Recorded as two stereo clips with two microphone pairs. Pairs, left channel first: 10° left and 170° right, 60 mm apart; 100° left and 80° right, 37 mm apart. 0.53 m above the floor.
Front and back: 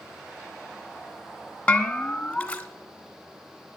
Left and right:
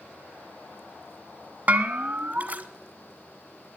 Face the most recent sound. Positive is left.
turn(degrees=-60)